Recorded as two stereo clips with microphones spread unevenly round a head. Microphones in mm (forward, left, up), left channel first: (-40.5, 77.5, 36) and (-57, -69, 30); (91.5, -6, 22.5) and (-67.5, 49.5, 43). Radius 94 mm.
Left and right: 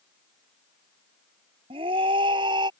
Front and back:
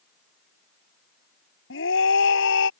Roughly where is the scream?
Ahead right.